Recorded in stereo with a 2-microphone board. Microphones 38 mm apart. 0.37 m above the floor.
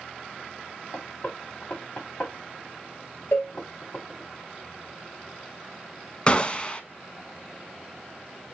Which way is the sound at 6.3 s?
25° left (ahead or behind).